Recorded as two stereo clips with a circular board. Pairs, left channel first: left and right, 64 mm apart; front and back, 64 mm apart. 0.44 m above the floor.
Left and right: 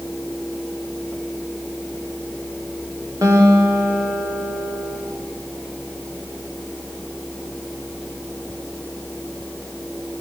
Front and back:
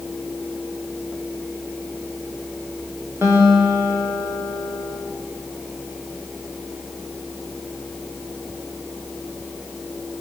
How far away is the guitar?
About 10 m.